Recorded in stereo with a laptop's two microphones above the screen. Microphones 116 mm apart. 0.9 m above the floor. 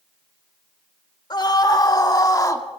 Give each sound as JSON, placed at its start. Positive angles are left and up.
{"t": 1.3, "sound": "a scream", "side_deg": 40, "distance_m": 3.5}